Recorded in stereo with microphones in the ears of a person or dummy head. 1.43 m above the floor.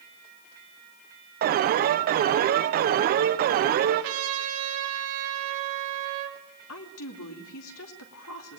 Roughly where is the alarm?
Right.